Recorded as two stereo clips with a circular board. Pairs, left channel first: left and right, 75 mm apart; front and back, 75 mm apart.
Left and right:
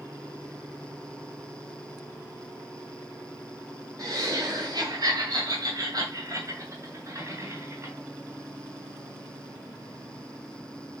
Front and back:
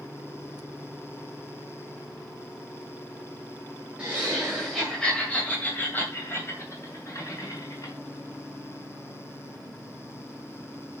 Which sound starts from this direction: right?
Laughter, at 4.0 s.